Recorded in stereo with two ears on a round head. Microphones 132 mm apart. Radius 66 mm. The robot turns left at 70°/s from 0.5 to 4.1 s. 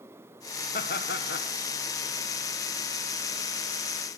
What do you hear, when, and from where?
0.7 s laughter: 120° left, 1.6 m; by 1.5 s 65° left, 1.6 m